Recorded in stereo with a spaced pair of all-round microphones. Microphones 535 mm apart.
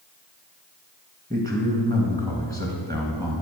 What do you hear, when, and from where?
1.3 s a man speaking: 15° right (ahead or behind), 1.1 m